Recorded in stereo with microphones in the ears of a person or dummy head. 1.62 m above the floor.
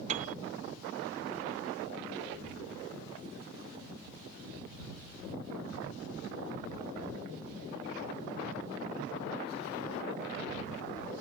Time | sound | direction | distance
0.1 | a piano | 40° right (ahead or behind) | ?